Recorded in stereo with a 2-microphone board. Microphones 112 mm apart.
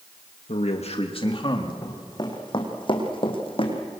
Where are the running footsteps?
35° left (ahead or behind), 4 m; by 3.8 s 55° left (ahead or behind), 3.5 m.